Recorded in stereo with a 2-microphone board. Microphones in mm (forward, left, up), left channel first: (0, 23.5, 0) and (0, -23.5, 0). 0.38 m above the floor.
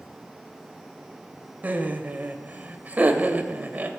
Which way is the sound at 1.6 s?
35° right (ahead or behind).